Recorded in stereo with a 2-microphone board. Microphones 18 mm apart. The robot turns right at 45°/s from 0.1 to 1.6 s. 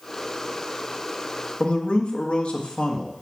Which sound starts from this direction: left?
A man speaking, at 1.6 s.